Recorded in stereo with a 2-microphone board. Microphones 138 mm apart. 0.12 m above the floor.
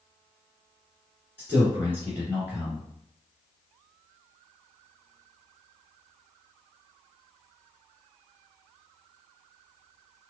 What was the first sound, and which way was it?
A man speaking, 15° right (ahead or behind).